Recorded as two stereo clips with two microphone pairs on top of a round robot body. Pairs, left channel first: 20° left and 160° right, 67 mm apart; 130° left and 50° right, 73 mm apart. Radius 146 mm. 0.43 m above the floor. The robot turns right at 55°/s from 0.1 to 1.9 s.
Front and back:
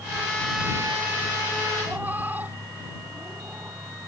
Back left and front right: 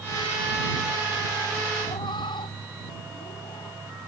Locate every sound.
1.8 s a cat meowing: 130° left; by 3.8 s 135° left